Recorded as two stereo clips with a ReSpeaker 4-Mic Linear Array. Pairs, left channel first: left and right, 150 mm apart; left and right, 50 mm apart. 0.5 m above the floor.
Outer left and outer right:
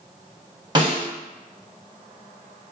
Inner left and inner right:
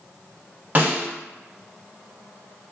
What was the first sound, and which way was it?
A snare drum, 30° right (ahead or behind).